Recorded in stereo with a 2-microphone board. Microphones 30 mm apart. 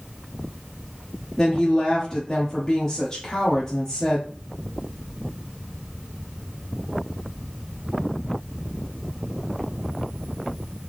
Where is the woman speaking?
20° left (ahead or behind), 1.1 m.